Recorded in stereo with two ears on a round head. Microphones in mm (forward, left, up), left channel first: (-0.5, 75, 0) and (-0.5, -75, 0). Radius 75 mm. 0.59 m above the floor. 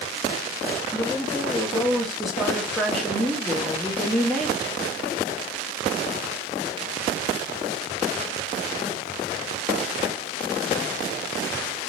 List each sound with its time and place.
0.9 s a woman speaking: centre (ahead or behind), 0.7 m